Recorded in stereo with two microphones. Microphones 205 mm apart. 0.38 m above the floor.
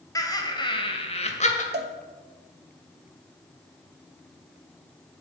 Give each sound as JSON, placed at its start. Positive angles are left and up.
{"t": 0.1, "sound": "laughter", "side_deg": 15, "distance_m": 2.0}
{"t": 1.7, "sound": "a cowbell", "side_deg": -55, "distance_m": 0.8}